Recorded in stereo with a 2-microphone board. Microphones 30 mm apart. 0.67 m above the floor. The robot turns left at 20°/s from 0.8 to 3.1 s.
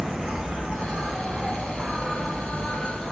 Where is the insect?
145° right, 1.1 m; by 3.1 s 170° left, 1.1 m.